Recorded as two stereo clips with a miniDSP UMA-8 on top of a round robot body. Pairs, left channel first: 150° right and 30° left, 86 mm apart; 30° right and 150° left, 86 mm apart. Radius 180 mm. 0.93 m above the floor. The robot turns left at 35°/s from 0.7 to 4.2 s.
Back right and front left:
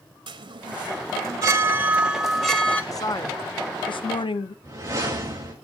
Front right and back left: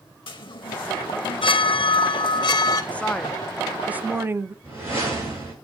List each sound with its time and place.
0.3 s a chime: 5° right, 1.2 m; by 2.8 s 80° right, 1.2 m
2.9 s a woman speaking: 100° right, 0.7 m; by 4.5 s 145° right, 0.7 m
4.6 s a whoosh: 90° left, 7 m